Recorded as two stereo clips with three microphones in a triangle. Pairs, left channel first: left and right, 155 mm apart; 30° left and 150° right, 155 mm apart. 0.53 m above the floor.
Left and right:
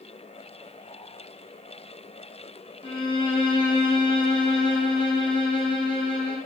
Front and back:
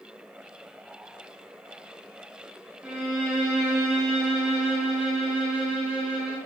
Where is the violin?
130° left, 0.6 m.